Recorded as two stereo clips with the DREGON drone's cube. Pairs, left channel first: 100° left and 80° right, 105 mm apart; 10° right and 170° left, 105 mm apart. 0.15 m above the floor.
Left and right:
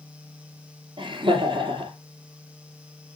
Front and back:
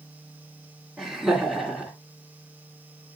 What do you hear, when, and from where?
1.0 s laughter: 95° right, 2.5 m